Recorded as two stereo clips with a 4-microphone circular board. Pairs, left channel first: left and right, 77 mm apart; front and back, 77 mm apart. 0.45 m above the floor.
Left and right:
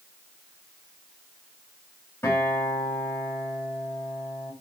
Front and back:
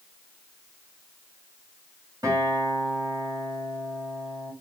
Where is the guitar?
145° left, 2.5 m.